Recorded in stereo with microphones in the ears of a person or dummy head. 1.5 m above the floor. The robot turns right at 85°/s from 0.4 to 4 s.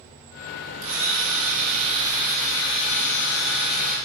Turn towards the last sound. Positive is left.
turn(degrees=145)